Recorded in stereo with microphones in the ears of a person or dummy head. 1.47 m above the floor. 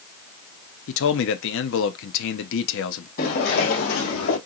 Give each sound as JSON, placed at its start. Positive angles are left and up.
{"t": 0.9, "sound": "a man speaking", "side_deg": 75, "distance_m": 0.6}
{"t": 3.2, "sound": "footsteps", "side_deg": 55, "distance_m": 3.0}